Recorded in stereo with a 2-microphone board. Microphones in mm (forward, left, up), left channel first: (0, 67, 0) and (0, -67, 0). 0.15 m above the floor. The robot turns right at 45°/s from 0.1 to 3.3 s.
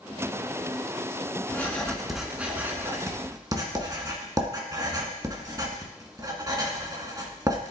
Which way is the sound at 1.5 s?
15° left (ahead or behind).